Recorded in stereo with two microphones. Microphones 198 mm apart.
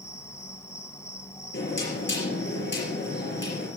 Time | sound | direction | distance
0.0 | an insect | 15° left (ahead or behind) | 1.3 m
1.5 | knocking | 70° left (ahead or behind) | 5 m